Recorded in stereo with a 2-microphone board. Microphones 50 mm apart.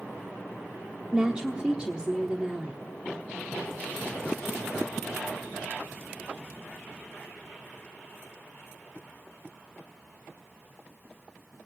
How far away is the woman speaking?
About 1.0 m.